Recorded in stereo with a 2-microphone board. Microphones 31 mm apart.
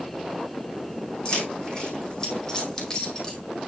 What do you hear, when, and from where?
1.2 s keys jangling: 30° left (ahead or behind), 3.5 m; by 3.4 s 20° left (ahead or behind), 2.5 m